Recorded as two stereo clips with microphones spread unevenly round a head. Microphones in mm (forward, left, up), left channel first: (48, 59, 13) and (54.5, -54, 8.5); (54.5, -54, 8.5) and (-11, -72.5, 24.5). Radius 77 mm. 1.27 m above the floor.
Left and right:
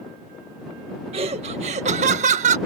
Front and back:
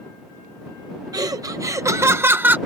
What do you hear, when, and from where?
1.1 s laughter: 135° right; by 2.6 s 95° right